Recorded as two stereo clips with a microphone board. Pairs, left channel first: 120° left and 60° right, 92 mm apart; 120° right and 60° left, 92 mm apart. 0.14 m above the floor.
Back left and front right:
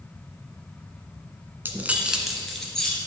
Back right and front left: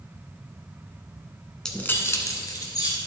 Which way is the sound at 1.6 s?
50° right.